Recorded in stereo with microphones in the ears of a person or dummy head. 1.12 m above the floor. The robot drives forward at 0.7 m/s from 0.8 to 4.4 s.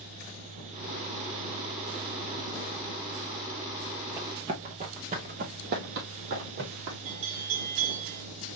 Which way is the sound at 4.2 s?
15° right (ahead or behind).